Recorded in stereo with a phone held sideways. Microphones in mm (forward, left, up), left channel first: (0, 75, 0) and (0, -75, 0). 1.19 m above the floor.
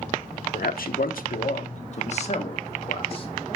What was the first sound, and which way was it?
A man speaking, 75° left (ahead or behind).